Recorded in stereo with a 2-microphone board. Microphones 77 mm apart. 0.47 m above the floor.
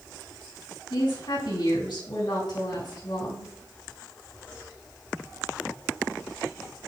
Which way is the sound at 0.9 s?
75° left (ahead or behind).